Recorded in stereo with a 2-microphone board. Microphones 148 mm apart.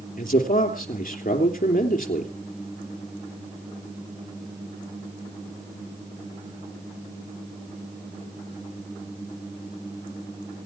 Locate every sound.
0.2 s a man speaking: 70° left (ahead or behind), 3 m